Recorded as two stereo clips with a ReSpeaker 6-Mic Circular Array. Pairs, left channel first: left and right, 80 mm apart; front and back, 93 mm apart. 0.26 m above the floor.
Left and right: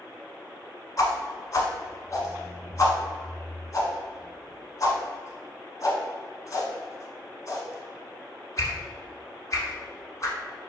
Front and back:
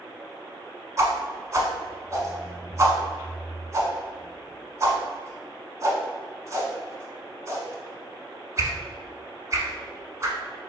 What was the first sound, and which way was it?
A whoosh, 130° left.